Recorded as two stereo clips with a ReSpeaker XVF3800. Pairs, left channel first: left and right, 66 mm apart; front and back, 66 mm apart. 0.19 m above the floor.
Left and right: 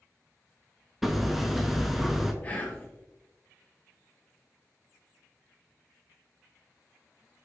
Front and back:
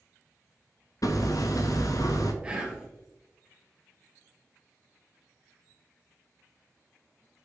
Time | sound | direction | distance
1.0 | hammering | 5° right | 0.6 m
2.4 | whispering | 120° left | 1.2 m